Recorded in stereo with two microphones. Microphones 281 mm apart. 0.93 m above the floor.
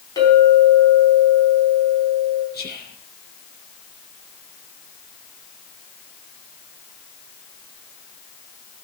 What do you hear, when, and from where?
0.2 s a clink: 15° left (ahead or behind), 5 m
2.5 s whispering: 35° left (ahead or behind), 0.7 m